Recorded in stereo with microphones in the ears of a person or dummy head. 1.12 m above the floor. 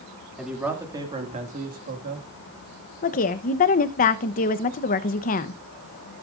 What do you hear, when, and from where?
0.4 s a man speaking: 5° right (ahead or behind), 2.5 m; by 2.3 s 55° right (ahead or behind), 2.0 m
3.0 s a woman speaking: 40° left (ahead or behind), 0.8 m